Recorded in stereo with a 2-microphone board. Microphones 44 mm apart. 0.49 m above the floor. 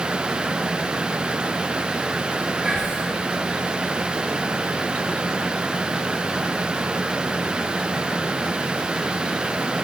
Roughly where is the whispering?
Centre.